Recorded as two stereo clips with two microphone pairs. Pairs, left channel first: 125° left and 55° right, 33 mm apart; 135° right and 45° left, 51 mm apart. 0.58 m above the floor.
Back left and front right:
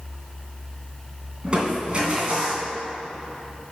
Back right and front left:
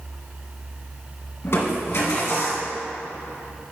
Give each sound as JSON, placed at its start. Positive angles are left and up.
{"t": 1.4, "sound": "crushing", "azimuth_deg": -110, "distance_m": 2.0}